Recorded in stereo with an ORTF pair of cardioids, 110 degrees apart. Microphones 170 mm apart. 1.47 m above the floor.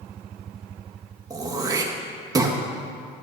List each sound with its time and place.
1.3 s throat clearing: 20° right, 1.9 m